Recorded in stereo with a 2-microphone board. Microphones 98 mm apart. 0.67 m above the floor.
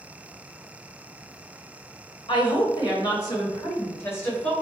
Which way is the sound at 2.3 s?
50° left (ahead or behind).